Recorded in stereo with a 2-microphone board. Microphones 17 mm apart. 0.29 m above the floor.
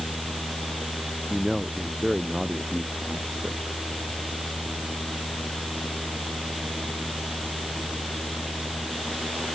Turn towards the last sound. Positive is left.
turn(degrees=-40)  # may be behind; listen again after turning